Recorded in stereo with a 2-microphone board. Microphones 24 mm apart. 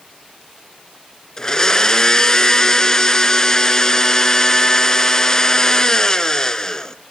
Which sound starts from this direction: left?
A blender, at 1.4 s.